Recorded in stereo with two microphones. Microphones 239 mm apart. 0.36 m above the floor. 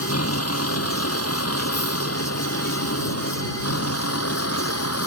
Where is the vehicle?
80° left; by 5.1 s 85° left.